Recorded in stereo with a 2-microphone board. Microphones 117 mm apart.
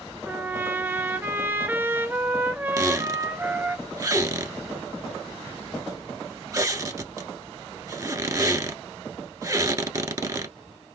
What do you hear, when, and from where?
0.2 s a trumpet: 15° right (ahead or behind), 0.6 m
2.8 s a squeak: 30° right (ahead or behind), 1.0 m